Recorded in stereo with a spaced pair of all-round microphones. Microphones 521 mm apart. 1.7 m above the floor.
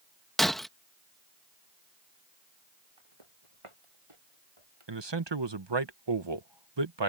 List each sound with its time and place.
0.4 s breaking glass: centre (ahead or behind)
3.0 s footsteps: 70° right (ahead or behind)
4.9 s a man speaking: 55° right (ahead or behind)